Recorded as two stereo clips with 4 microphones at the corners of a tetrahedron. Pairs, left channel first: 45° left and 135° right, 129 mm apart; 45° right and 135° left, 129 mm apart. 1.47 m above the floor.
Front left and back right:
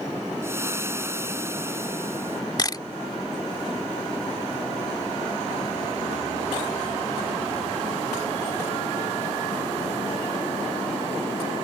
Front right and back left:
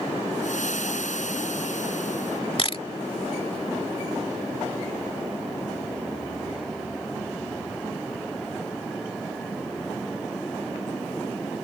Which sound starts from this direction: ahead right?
Frying, at 0.4 s.